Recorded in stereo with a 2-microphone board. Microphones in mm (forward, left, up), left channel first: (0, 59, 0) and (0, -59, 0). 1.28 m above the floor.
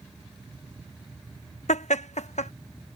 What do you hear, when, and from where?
1.7 s laughter: 75° left (ahead or behind)